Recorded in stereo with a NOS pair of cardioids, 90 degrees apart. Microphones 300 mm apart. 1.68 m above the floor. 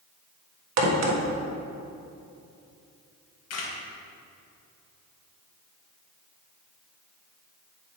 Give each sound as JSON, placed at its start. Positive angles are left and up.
{"t": 0.8, "sound": "a crack", "azimuth_deg": -65, "distance_m": 1.5}
{"t": 3.5, "sound": "a camera shutter", "azimuth_deg": 60, "distance_m": 1.8}